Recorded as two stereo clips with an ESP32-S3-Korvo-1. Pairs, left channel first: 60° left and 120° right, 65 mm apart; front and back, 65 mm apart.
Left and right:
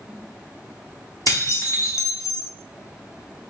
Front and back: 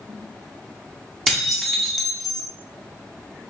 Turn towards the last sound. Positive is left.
turn(degrees=90)